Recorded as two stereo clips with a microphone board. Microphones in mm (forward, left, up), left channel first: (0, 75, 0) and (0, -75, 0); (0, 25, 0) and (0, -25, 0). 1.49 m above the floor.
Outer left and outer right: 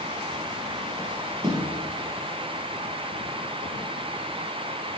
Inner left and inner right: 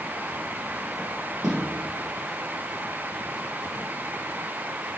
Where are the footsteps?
5° right (ahead or behind), 2.0 m.